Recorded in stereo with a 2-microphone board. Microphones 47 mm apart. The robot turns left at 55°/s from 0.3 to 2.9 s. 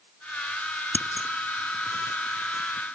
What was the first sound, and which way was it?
Scissors, 40° left (ahead or behind).